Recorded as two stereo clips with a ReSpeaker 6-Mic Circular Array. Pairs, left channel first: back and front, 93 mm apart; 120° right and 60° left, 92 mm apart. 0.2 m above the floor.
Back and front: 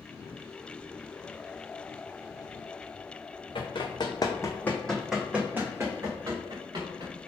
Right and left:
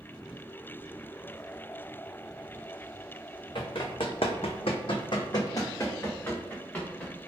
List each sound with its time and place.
3.5 s running footsteps: 150° right, 0.9 m; by 7.3 s 40° right, 1.5 m